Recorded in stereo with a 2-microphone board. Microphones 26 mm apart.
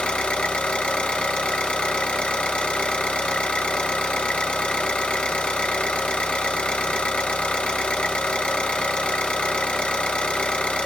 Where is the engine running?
45° left (ahead or behind), 2.5 m.